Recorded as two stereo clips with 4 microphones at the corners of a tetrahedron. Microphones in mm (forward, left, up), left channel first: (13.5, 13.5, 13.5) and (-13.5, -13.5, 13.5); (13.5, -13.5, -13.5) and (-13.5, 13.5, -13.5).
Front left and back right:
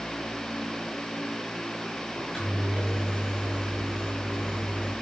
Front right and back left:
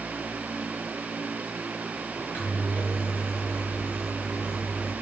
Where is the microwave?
40° right, 8.5 m.